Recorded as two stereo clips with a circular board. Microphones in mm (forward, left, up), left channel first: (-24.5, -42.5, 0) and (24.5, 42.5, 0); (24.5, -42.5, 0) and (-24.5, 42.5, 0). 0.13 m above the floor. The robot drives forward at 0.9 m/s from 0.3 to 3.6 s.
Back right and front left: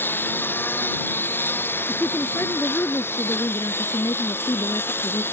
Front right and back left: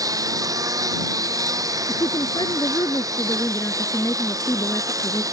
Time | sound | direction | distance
0.0 | a lawn mower | 170° left | ?
1.9 | a woman speaking | 55° right | ?